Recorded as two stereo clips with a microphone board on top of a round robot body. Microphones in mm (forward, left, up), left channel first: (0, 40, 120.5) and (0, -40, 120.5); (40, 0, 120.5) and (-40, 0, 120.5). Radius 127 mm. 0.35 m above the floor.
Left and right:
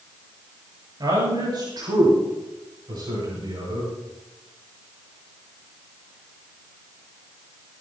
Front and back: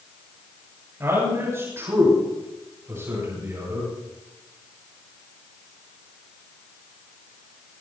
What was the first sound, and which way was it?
A man speaking, 120° right.